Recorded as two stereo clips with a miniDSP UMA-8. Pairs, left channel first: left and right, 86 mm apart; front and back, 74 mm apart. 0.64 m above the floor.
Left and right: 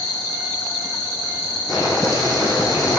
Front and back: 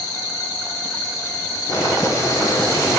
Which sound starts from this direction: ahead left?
Boiling, at 1.7 s.